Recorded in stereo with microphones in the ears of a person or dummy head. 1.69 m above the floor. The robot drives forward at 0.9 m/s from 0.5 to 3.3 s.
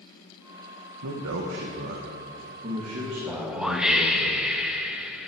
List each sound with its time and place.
1.0 s a man speaking: 70° right (ahead or behind), 1.4 m; by 4.3 s 30° right (ahead or behind), 2.5 m
3.3 s a whoosh: 5° right (ahead or behind), 0.9 m